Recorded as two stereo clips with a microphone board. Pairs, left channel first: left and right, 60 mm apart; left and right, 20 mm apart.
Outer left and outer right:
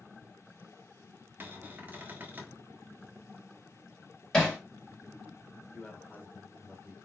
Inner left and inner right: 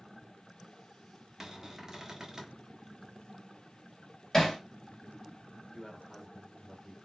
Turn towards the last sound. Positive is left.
turn(degrees=25)  # may be behind; listen again after turning